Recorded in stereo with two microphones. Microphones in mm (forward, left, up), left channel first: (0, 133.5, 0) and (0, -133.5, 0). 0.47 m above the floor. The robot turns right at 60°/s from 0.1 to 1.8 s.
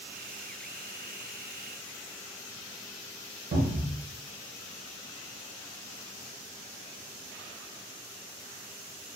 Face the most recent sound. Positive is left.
turn(degrees=-45)  # may be behind; listen again after turning